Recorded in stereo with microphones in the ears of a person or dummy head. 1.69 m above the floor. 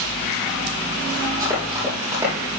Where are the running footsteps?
15° right (ahead or behind), 4 m.